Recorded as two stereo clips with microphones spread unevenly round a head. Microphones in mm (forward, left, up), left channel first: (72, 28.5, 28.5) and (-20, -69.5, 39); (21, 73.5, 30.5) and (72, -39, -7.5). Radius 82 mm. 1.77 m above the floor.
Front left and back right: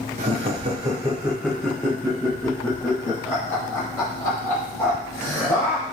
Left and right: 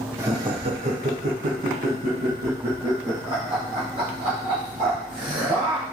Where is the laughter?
145° right, 0.8 m; by 5.8 s 20° right, 3.5 m.